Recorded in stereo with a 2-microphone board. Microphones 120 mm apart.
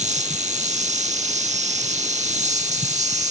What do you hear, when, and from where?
0.0 s an insect: 90° right